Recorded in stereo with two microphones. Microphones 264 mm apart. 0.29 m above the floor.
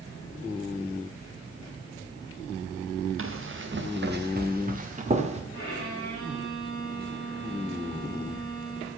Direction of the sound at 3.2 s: 55° right (ahead or behind).